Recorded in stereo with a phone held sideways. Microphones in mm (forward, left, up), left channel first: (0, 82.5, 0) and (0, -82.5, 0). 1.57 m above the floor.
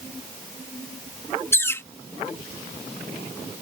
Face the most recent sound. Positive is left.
turn(degrees=15)  # may be behind; listen again after turning